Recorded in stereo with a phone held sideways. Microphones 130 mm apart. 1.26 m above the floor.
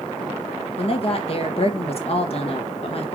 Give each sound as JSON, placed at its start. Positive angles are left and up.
{"t": 0.8, "sound": "a woman speaking", "side_deg": 50, "distance_m": 1.5}